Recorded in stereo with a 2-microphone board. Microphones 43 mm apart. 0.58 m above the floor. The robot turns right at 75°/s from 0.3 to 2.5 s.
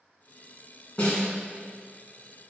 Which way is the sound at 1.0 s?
35° left (ahead or behind).